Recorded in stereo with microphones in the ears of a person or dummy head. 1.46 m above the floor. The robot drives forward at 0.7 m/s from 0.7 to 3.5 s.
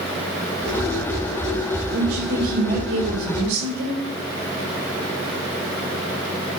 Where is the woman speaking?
65° right (ahead or behind), 5 m; by 4.0 s 55° right (ahead or behind), 5.5 m.